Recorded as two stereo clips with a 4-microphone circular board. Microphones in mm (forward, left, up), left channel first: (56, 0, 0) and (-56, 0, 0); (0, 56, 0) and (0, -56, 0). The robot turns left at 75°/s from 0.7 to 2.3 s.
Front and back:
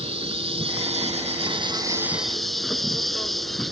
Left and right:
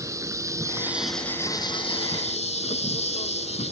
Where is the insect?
150° right; by 3.7 s 90° left.